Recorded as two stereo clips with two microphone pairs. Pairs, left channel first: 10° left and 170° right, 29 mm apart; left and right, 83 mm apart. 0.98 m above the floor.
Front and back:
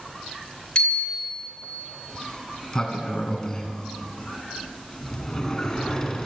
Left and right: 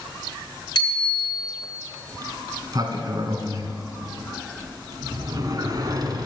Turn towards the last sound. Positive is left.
turn(degrees=-65)